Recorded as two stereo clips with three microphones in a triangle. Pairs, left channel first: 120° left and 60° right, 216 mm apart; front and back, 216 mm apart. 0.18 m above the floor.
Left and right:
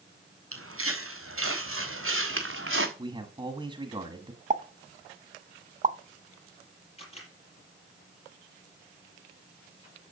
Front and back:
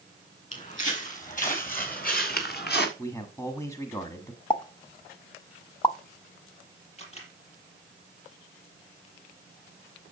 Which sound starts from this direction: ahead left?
A camera shutter, at 7.0 s.